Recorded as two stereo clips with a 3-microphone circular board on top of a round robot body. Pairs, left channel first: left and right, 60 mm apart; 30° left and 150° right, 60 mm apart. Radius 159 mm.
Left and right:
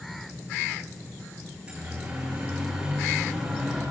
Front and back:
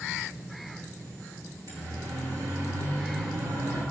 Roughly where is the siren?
Behind.